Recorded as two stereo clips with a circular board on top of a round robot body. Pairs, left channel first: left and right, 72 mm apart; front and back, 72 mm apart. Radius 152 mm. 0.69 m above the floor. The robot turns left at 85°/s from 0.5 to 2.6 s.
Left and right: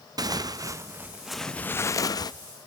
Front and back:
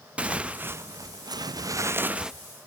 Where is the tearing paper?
110° right, 0.5 m; by 2.3 s 95° left, 0.5 m.